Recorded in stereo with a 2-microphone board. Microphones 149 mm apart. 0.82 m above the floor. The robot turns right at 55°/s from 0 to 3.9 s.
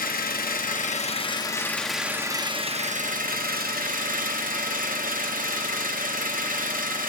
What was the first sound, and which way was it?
An engine running, 75° left.